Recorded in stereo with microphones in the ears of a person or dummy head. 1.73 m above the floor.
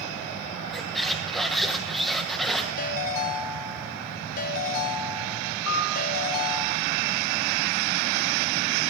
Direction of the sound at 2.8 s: 50° left (ahead or behind).